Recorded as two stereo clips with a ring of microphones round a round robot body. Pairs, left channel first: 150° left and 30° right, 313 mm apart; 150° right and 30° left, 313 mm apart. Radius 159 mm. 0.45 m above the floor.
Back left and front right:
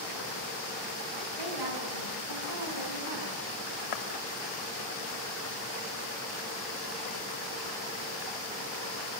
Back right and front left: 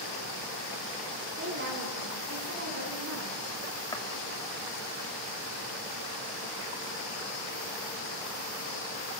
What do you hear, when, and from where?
1.4 s a woman speaking: 25° right, 6 m; by 3.4 s 15° right, 6 m
3.9 s footsteps: 130° left, 3 m